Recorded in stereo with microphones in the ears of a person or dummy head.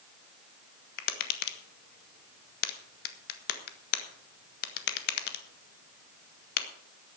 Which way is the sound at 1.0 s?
50° left (ahead or behind).